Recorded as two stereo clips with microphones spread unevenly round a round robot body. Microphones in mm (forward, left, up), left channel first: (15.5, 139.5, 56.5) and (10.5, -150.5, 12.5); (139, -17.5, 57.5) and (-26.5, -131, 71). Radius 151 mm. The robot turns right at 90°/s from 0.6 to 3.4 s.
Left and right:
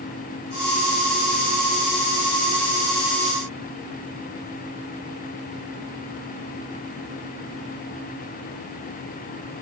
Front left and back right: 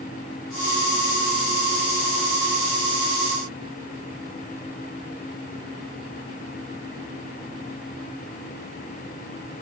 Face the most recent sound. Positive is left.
No sound to turn to.